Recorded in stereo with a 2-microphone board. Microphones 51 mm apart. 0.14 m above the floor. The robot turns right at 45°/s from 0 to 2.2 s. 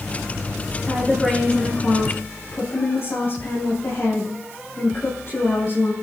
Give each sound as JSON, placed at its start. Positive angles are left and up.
{"t": 0.8, "sound": "a woman speaking", "azimuth_deg": -15, "distance_m": 6.0}